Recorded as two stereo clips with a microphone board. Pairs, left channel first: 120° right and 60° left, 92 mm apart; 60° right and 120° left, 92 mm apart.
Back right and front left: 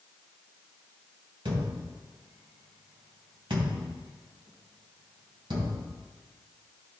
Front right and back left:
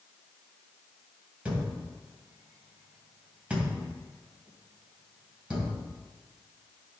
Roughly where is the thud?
Ahead left.